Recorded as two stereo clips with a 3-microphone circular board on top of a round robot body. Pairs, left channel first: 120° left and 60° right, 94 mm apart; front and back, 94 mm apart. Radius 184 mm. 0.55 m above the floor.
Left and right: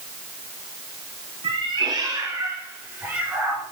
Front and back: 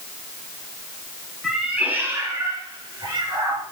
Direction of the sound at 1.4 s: 95° right.